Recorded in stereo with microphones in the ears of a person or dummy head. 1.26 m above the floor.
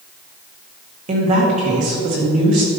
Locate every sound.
1.1 s a woman speaking: 40° right (ahead or behind), 1.7 m